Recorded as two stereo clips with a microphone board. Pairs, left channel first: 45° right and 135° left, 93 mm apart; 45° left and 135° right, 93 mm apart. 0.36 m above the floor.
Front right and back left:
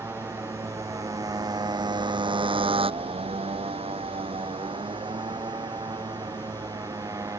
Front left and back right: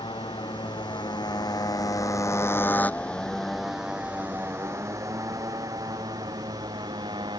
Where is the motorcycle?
70° left; by 7.4 s 170° right.